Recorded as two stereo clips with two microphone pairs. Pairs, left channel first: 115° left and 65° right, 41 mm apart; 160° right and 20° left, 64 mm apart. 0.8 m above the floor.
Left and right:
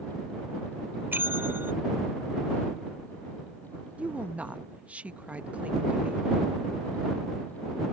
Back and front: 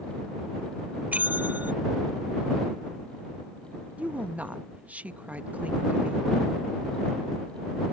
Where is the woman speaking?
35° right.